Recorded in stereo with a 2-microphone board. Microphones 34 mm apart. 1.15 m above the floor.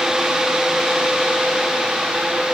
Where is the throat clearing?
I don't hear throat clearing.